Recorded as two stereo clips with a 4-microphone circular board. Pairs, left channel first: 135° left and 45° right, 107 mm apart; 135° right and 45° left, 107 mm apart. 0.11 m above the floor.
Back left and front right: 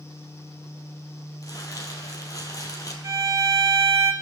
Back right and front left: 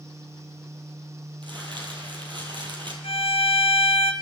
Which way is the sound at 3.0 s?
105° right.